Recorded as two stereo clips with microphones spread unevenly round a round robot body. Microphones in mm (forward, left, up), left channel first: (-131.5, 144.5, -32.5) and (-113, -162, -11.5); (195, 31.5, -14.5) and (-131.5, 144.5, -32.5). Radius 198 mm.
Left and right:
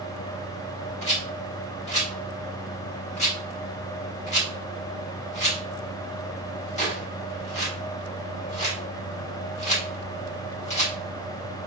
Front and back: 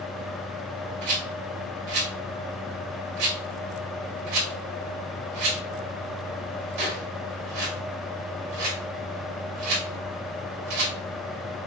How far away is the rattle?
About 1.8 m.